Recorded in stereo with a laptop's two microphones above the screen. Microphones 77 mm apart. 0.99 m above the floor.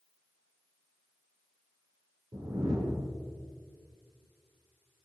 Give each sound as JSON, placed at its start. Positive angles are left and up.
{"t": 2.3, "sound": "a whoosh", "side_deg": -90, "distance_m": 2.0}